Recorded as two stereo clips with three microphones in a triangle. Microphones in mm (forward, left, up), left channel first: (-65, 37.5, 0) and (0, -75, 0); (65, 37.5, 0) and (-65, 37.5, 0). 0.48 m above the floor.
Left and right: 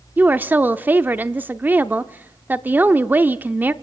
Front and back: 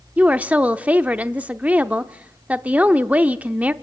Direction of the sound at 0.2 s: 115° right.